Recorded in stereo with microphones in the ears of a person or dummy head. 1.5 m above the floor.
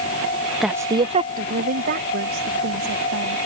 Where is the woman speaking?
Centre (ahead or behind); by 3.4 s 65° right (ahead or behind).